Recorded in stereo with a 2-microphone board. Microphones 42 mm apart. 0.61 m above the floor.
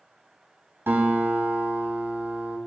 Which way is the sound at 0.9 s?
75° right (ahead or behind).